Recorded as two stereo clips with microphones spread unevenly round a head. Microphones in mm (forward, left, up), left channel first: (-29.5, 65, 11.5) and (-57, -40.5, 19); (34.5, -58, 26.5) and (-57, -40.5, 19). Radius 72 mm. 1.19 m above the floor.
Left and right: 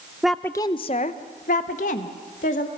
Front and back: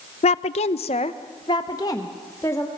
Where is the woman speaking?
15° right, 0.6 m; by 2.7 s 60° left, 1.9 m.